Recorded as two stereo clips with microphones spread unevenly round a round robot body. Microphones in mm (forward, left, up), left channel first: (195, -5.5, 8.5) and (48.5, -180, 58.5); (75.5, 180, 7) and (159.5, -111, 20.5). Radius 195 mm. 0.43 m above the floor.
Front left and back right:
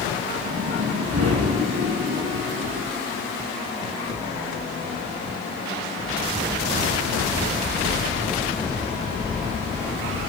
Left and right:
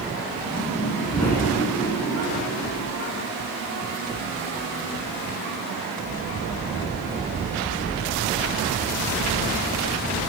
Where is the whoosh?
170° right, 4.5 m.